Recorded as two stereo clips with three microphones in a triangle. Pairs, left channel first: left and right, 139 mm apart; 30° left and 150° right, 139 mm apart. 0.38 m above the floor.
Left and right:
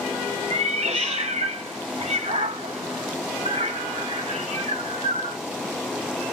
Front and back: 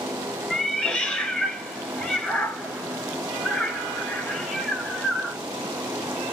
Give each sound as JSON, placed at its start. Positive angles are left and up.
{"t": 0.5, "sound": "a cat meowing", "azimuth_deg": -55, "distance_m": 0.7}